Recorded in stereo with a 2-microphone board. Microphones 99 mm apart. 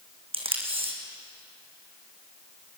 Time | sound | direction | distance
0.3 | tape being pulled | 70° right (ahead or behind) | 3 m